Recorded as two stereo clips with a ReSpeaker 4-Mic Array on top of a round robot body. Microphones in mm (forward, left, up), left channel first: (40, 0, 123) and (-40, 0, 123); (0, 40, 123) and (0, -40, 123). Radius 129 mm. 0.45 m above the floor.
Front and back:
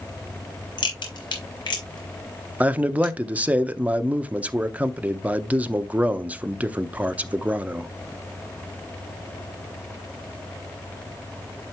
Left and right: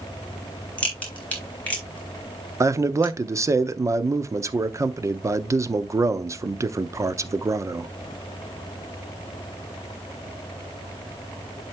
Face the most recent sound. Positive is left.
turn(degrees=-115)